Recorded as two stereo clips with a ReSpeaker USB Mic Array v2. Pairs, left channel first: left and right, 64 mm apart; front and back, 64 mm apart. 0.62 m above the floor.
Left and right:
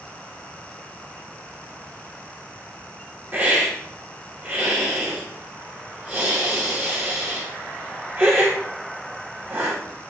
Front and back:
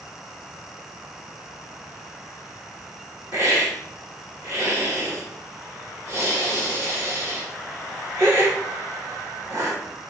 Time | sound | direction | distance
3.3 | a hiss | 145° right | 1.1 m